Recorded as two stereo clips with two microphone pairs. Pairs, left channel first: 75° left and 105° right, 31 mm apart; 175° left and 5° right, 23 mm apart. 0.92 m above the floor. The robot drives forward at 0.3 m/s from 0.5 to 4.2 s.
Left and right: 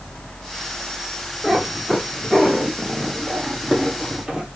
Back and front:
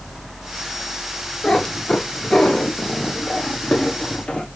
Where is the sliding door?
I don't hear a sliding door.